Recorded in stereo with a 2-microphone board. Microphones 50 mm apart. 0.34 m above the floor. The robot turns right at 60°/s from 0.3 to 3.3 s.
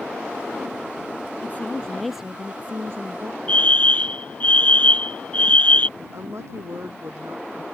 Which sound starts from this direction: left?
A fire alarm, at 3.5 s.